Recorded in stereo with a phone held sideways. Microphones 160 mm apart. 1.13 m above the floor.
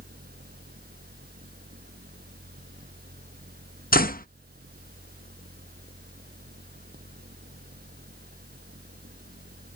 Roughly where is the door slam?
Left.